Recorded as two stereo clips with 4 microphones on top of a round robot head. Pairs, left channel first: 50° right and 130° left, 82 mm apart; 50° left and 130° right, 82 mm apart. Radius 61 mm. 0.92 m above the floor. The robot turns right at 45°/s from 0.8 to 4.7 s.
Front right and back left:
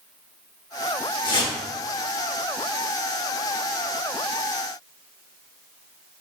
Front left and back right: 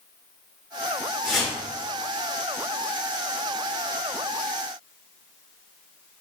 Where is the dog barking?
No dog barking in this recording.